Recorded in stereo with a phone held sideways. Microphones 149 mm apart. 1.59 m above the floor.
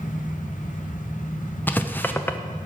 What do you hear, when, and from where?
0.0 s a fan: 60° left (ahead or behind), 0.8 m
1.7 s writing: 15° left (ahead or behind), 0.5 m